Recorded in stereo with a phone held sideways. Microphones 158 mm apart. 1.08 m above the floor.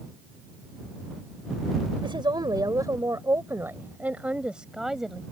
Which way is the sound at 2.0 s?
30° right (ahead or behind).